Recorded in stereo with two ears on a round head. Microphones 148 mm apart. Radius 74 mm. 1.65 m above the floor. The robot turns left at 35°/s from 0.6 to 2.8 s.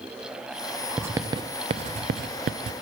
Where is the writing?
10° right (ahead or behind), 0.5 m; by 2.7 s 70° right (ahead or behind), 0.5 m.